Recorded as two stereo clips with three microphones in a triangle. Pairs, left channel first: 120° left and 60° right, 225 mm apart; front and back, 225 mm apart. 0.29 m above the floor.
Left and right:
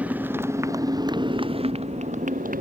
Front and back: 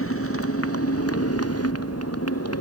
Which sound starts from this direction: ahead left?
A motorcycle, at 0.0 s.